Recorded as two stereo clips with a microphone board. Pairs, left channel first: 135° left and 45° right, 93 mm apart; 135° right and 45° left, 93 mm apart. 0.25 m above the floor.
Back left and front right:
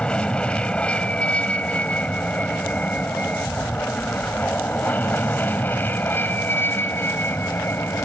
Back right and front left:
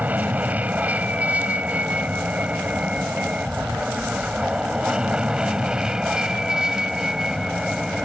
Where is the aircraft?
80° left; by 8.1 s 120° left.